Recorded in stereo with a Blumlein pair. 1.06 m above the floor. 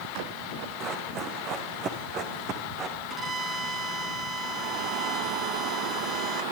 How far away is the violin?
About 1.3 m.